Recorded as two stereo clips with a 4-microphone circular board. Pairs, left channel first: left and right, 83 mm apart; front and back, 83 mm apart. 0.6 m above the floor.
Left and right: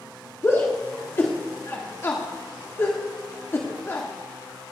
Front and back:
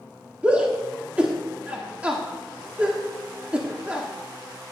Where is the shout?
115° left, 1.5 m.